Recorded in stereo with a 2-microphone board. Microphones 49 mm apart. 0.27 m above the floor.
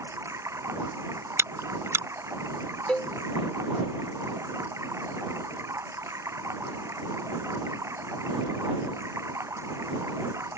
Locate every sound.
0.0 s running water: 75° right (ahead or behind)
1.4 s chewing: 65° right (ahead or behind)
2.9 s a cowbell: 25° left (ahead or behind)